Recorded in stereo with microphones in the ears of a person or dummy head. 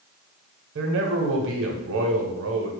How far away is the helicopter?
I don't hear a helicopter.